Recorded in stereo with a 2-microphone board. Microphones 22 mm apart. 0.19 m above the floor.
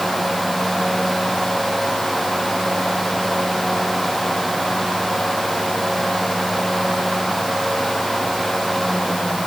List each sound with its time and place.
Only background noise.